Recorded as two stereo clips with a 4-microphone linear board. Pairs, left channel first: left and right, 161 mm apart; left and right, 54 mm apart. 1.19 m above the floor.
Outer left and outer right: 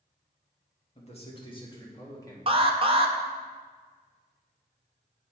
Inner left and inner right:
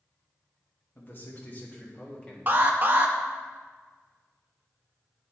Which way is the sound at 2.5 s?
35° right (ahead or behind).